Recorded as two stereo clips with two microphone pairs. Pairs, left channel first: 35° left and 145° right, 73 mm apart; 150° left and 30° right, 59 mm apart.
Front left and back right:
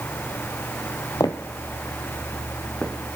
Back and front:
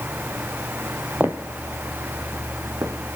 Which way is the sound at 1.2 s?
20° left.